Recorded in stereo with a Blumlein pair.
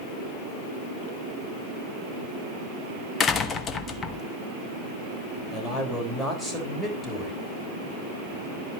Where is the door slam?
25° left, 1.2 m.